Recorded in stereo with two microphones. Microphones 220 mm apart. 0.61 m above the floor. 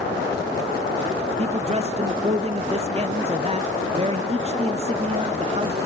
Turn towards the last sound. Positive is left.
turn(degrees=-30)  # may be behind; listen again after turning